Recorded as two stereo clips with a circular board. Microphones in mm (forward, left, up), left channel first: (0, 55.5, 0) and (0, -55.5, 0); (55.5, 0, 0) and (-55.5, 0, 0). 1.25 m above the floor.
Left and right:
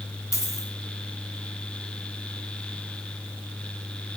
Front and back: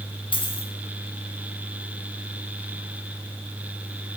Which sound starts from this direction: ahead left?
A dropped coin, at 0.3 s.